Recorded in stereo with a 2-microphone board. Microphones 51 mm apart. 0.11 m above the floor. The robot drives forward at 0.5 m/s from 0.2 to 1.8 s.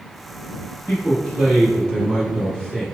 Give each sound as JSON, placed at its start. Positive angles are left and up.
{"t": 0.9, "sound": "a man speaking", "side_deg": 20, "distance_m": 1.9}